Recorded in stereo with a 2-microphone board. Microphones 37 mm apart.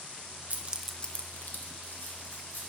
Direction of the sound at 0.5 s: 40° right (ahead or behind).